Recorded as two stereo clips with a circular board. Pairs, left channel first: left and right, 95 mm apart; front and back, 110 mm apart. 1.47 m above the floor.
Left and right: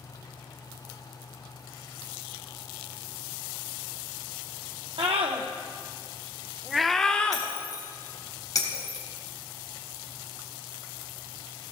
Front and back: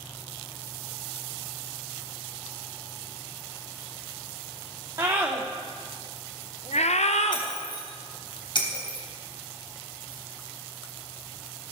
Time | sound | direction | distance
5.0 | a scream | 115° right | 1.1 m
7.3 | breaking glass | 40° left | 3.5 m